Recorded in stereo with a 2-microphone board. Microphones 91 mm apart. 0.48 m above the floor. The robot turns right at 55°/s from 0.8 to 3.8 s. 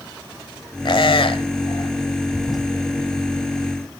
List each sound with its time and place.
0.8 s a squeak: 60° left (ahead or behind), 1.3 m; by 1.9 s 55° left (ahead or behind), 1.3 m
2.4 s a toilet flushing: 10° left (ahead or behind), 3.5 m; by 2.6 s 5° right (ahead or behind), 3.5 m